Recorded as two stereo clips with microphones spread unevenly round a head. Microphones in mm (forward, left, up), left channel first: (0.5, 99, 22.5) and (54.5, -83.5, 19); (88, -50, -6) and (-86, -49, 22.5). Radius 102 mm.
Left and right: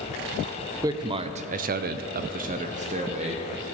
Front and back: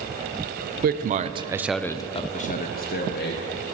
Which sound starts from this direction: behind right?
A man speaking, at 0.8 s.